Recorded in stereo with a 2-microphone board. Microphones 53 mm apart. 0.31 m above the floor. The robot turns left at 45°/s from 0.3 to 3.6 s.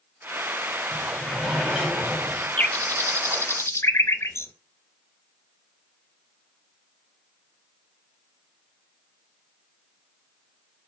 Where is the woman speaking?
No woman speaking in this recording.